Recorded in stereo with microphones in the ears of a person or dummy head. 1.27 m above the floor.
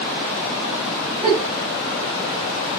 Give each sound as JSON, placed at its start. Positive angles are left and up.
{"t": 1.2, "sound": "a giggle", "side_deg": 5, "distance_m": 1.4}